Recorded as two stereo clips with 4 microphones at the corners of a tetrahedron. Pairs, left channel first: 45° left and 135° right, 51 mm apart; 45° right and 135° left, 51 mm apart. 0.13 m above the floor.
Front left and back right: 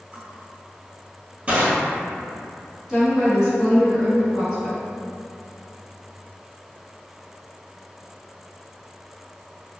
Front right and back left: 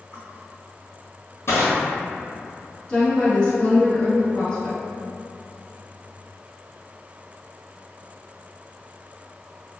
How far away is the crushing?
About 1.1 m.